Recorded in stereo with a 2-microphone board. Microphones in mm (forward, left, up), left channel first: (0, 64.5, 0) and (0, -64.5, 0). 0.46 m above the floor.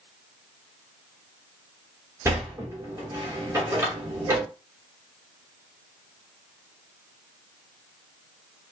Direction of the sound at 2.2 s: 20° right (ahead or behind).